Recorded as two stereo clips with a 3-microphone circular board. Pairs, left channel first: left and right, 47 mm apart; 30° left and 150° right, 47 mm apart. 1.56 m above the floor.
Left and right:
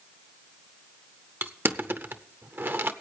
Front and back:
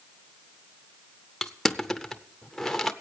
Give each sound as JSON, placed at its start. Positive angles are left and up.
{"t": 1.4, "sound": "crushing", "azimuth_deg": -50, "distance_m": 0.7}